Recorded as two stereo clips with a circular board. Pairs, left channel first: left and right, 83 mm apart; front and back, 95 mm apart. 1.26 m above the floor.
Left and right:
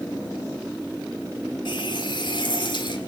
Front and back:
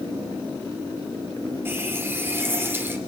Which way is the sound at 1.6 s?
110° left.